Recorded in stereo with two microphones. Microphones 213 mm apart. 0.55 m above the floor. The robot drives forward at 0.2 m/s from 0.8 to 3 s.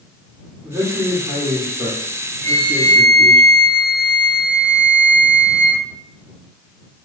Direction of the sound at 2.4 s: 35° right (ahead or behind).